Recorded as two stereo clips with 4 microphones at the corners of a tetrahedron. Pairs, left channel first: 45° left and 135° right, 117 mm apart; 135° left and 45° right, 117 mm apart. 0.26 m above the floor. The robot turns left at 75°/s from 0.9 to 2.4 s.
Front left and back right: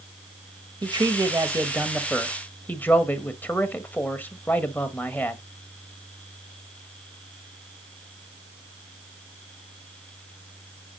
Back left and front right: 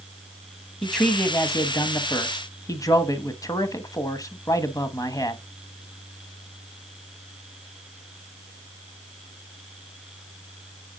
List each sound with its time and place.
0.8 s a man speaking: 140° right, 1.2 m; by 5.4 s 110° left, 1.2 m